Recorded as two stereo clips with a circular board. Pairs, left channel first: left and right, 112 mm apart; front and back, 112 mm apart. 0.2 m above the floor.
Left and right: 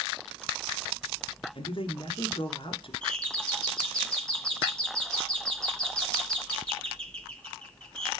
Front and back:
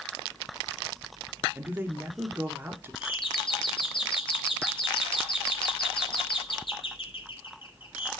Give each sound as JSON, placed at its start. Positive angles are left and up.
{"t": 1.6, "sound": "a man speaking", "azimuth_deg": 110, "distance_m": 2.5}
{"t": 3.0, "sound": "a doorbell", "azimuth_deg": 10, "distance_m": 2.5}